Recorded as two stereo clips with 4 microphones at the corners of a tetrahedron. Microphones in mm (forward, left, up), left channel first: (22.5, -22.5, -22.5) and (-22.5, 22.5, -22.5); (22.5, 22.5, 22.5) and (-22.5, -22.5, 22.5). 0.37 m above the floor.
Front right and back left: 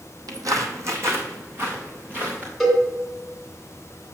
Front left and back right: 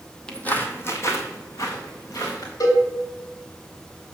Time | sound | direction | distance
0.3 | footsteps | 120° left | 0.9 m
2.6 | a cowbell | 50° left | 2.5 m